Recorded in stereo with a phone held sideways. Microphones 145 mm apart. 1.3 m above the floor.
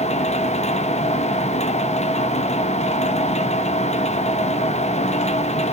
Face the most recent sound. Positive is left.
turn(degrees=50)  # may be behind; listen again after turning